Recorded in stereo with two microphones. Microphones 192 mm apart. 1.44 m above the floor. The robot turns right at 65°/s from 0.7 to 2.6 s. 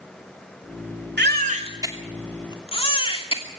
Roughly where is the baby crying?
Right.